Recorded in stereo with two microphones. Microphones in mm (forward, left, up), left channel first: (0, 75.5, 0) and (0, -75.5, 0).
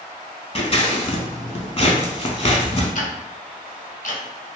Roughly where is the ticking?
Left.